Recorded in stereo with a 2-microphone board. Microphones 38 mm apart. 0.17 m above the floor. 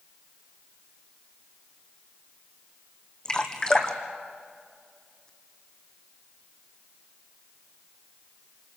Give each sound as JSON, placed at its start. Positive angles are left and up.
{"t": 3.2, "sound": "dripping", "side_deg": 20, "distance_m": 2.0}